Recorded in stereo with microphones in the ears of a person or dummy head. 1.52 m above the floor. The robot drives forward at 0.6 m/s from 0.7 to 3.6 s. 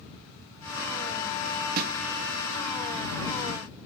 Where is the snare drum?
50° right (ahead or behind), 0.5 m; by 1.9 s 60° right (ahead or behind), 0.5 m.